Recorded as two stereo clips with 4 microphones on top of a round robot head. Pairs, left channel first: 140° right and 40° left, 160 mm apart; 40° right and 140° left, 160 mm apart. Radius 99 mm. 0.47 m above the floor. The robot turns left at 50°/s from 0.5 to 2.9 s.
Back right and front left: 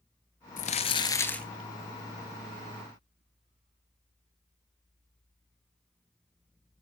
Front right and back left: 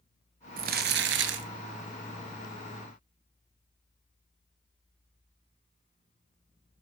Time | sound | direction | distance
0.6 | crumpling | 175° left | 1.6 m